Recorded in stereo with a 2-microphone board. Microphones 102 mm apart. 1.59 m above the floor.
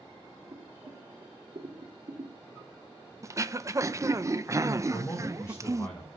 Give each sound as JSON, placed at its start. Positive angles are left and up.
{"t": 0.5, "sound": "boiling", "side_deg": -80, "distance_m": 3.5}
{"t": 3.2, "sound": "throat clearing", "side_deg": -30, "distance_m": 0.7}
{"t": 4.9, "sound": "a man speaking", "side_deg": 30, "distance_m": 7.0}